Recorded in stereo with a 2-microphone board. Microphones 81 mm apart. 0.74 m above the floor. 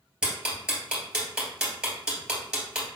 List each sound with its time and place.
0.2 s ticking: 10° right (ahead or behind), 2 m